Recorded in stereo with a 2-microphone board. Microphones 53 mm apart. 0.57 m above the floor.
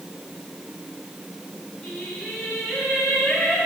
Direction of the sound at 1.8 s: 15° left (ahead or behind).